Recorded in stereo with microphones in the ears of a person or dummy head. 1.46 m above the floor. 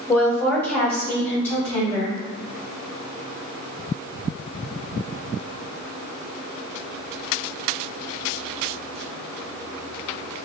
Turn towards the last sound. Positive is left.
turn(degrees=5)  # may be behind; listen again after turning